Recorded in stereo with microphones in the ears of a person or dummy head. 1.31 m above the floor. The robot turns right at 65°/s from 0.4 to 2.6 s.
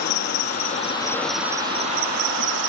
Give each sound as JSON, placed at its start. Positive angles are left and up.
{"t": 0.0, "sound": "an insect", "azimuth_deg": 120}